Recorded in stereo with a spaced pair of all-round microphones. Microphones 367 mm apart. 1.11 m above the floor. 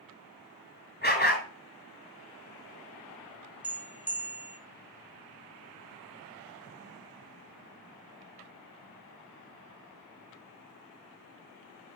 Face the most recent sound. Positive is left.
turn(degrees=-5)  # may be behind; listen again after turning